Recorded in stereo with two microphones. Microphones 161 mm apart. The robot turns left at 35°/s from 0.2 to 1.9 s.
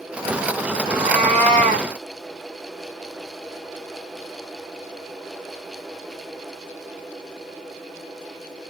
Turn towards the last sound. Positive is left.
turn(degrees=-70)